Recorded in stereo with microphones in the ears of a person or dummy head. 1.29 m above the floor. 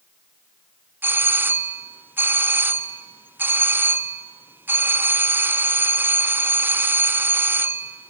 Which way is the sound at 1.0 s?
5° right (ahead or behind).